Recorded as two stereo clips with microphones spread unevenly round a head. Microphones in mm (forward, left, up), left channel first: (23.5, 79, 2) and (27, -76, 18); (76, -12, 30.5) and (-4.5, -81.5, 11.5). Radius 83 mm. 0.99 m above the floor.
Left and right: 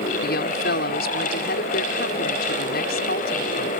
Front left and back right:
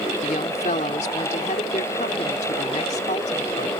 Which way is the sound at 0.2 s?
80° left.